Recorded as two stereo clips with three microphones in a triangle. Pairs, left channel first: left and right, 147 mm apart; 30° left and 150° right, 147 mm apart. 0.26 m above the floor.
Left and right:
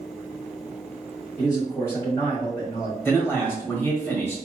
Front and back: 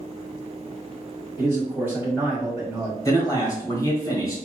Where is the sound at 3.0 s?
40° left, 1.5 m.